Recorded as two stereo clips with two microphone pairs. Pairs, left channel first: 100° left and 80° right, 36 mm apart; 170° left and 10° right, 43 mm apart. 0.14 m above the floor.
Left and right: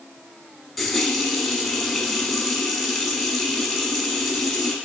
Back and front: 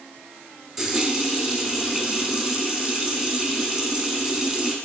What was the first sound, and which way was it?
A running tap, 35° left.